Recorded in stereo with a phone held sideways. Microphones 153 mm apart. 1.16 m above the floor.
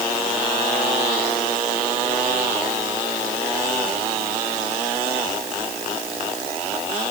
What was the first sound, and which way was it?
Only background noise.